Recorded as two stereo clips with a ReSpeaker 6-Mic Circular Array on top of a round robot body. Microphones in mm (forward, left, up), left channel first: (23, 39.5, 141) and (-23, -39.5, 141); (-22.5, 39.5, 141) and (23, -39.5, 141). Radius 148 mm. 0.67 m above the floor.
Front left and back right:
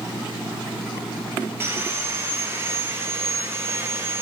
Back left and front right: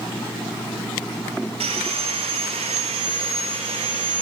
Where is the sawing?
55° right, 0.6 m.